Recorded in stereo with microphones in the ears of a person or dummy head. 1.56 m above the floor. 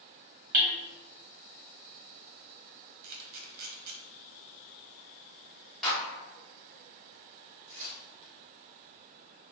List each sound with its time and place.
0.5 s hammering: 50° right (ahead or behind), 0.6 m
3.0 s a camera shutter: 55° right (ahead or behind), 0.8 m
5.8 s a clap: 5° left (ahead or behind), 1.6 m
7.7 s tearing paper: 40° right (ahead or behind), 1.9 m